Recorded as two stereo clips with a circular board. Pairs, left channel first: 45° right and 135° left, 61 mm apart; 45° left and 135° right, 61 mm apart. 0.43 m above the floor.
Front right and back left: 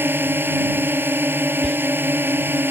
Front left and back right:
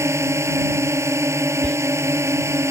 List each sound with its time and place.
0.0 s a drone: 170° right
1.6 s whispering: 20° left